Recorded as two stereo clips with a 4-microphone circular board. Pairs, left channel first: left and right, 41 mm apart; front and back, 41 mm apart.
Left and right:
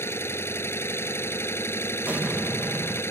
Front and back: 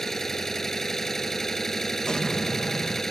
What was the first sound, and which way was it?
An engine running, 80° left.